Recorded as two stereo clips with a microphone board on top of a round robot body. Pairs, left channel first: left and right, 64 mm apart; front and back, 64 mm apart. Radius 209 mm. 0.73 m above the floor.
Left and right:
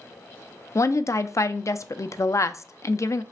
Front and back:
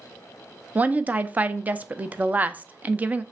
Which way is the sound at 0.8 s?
115° left.